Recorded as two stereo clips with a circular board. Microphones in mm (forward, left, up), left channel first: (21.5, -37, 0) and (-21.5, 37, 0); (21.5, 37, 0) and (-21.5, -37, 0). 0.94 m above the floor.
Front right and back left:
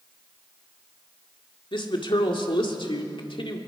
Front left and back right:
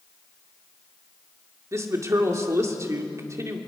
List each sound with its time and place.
1.7 s a woman speaking: 65° right, 2 m